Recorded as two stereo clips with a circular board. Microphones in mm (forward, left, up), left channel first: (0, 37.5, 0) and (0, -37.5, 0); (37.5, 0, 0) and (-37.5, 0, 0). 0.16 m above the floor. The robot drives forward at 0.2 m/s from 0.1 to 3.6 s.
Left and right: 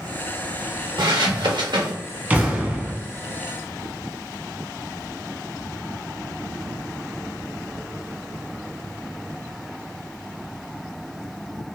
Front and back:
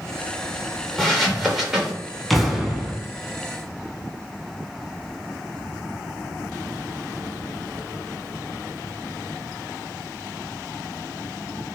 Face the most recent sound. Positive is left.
turn(degrees=-140)